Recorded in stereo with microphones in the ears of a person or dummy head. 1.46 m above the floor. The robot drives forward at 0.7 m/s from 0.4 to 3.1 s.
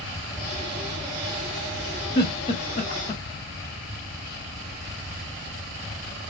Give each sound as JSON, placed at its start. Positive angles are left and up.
{"t": 2.1, "sound": "a giggle", "side_deg": 25, "distance_m": 0.9}